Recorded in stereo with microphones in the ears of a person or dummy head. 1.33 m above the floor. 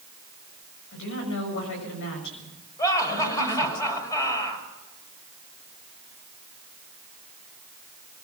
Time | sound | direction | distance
0.9 | a woman speaking | 65° left (ahead or behind) | 7 m
2.8 | laughter | 20° left (ahead or behind) | 6.5 m